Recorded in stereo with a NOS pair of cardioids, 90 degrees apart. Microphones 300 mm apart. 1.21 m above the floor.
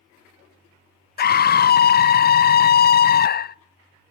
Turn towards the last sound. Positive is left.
turn(degrees=30)